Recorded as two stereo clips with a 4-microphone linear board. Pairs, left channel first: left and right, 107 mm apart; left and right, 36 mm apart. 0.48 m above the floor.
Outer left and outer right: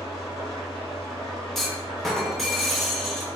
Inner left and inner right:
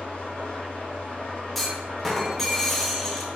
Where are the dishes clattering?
I don't hear dishes clattering.